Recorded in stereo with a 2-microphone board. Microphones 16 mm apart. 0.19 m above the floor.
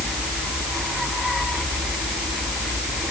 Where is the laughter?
No laughter in this recording.